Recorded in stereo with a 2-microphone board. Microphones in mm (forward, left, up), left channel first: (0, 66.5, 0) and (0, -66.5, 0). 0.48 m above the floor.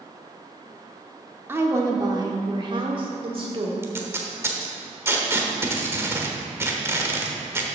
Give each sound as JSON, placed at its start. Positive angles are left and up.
{"t": 1.5, "sound": "a woman speaking", "side_deg": -15, "distance_m": 0.9}
{"t": 3.8, "sound": "tape being pulled", "side_deg": -20, "distance_m": 1.0}